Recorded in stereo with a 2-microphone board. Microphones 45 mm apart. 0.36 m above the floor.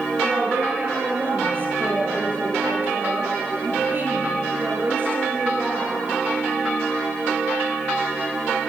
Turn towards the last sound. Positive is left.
turn(degrees=-45)  # may be behind; listen again after turning